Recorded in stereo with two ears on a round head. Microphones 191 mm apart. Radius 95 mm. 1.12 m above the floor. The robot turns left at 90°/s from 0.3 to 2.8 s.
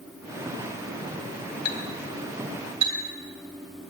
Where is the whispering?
No whispering in this recording.